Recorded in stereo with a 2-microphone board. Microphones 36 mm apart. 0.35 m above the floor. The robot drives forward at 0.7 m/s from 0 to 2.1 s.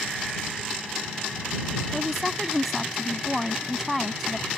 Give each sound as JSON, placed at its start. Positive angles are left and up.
{"t": 1.9, "sound": "a woman speaking", "side_deg": -5}